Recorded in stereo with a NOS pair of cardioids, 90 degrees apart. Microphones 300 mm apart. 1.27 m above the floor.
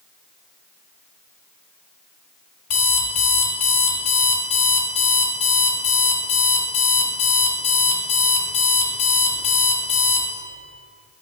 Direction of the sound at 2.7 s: 55° left.